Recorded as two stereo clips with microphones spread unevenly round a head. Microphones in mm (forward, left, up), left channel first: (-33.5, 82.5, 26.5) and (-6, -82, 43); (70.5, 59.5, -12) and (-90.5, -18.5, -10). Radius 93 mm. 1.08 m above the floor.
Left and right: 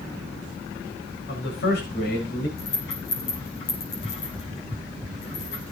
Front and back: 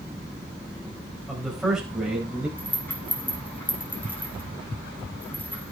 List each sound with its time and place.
1.3 s a man speaking: 115° left, 4 m; by 2.5 s 125° left, 5 m
2.6 s a rattle: 105° left, 6 m